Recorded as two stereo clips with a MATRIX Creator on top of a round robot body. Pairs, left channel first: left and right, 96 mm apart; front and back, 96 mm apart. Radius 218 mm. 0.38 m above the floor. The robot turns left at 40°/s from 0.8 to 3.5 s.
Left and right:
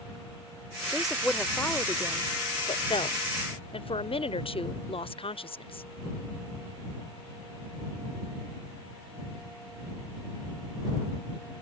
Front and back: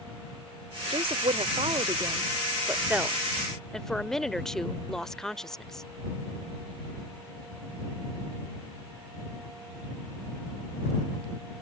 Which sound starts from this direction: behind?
A woman speaking, at 0.9 s.